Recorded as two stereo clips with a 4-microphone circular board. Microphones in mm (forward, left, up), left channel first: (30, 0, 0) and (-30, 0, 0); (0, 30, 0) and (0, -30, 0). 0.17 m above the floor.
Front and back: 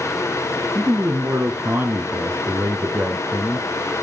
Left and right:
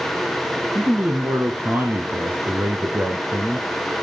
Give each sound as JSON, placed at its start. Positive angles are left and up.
{"t": 0.8, "sound": "a man speaking", "azimuth_deg": -135, "distance_m": 1.9}